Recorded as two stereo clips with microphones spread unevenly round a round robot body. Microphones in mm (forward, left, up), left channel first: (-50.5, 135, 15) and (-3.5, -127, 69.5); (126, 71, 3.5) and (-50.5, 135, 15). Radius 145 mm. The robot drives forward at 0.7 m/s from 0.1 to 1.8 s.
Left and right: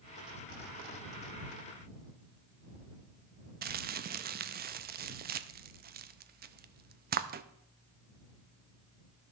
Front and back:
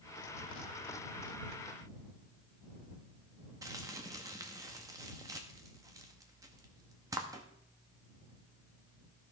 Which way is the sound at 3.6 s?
130° right.